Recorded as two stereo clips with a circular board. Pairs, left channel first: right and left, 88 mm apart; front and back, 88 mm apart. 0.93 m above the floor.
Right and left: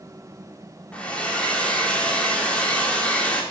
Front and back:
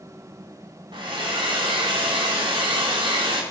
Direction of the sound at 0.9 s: 165° right.